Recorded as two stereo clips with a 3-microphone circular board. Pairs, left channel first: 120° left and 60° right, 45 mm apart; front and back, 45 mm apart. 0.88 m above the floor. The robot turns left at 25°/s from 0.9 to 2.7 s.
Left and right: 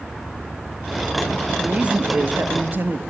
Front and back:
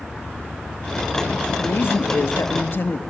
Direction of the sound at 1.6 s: 5° left.